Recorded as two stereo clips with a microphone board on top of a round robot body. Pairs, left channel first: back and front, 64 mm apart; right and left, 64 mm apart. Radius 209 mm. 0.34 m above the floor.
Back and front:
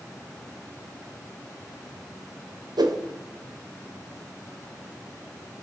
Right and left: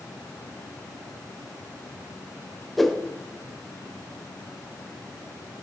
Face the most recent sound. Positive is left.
turn(degrees=0)